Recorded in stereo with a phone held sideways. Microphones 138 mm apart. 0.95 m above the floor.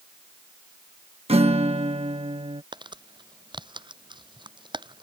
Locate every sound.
1.3 s a guitar: 45° right (ahead or behind)
2.7 s crumpling: 35° right (ahead or behind)